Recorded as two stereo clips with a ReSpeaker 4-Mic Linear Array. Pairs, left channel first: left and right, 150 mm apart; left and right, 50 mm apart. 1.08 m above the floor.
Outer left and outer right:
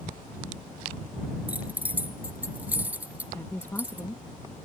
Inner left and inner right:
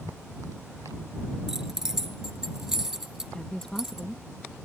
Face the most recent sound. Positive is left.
turn(degrees=15)  # may be behind; listen again after turning